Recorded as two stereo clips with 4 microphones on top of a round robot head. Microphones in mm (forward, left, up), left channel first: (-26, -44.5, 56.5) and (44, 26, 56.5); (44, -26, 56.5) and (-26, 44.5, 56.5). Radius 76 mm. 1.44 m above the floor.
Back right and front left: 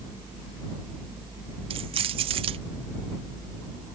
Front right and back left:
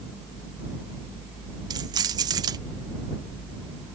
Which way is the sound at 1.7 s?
85° left.